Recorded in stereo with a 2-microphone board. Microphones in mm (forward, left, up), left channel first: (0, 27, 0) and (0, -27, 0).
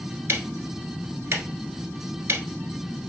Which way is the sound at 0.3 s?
55° right (ahead or behind).